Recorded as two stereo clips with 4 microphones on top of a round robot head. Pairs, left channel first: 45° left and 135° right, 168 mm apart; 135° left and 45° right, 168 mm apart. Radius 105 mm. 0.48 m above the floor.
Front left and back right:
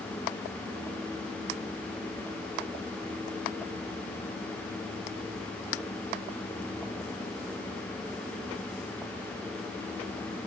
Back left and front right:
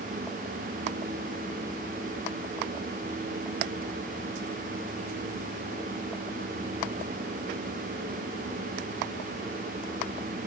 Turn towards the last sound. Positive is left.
No sound to turn to.